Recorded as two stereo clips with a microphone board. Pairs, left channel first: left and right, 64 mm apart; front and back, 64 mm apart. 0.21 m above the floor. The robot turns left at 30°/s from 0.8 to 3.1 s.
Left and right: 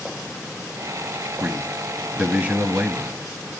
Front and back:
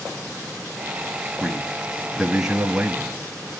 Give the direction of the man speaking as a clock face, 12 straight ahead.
3 o'clock.